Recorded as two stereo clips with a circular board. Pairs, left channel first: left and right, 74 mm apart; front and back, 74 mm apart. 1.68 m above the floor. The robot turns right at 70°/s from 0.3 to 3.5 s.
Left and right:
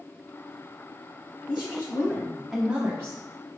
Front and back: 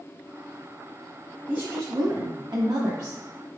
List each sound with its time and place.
1.5 s a woman speaking: 110° left, 0.6 m; by 3.5 s 110° right, 0.6 m